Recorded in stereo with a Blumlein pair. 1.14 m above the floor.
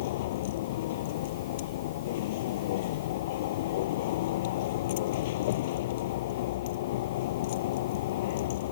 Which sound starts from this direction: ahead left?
A vehicle, at 0.0 s.